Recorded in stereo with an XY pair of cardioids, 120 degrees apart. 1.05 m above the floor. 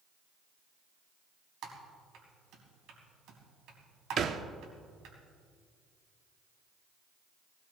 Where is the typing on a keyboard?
70° right, 3.5 m.